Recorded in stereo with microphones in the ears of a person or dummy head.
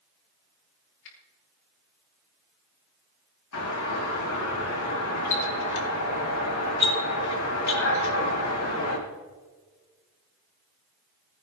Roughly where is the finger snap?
Left.